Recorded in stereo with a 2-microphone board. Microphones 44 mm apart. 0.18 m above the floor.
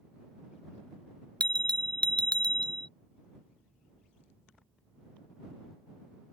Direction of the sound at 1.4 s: 25° left (ahead or behind).